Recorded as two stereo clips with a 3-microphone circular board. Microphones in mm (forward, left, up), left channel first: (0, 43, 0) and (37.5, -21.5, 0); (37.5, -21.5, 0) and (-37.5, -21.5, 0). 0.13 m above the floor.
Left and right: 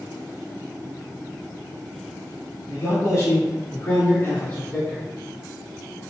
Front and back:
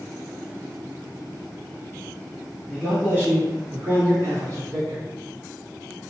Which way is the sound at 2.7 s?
120° left.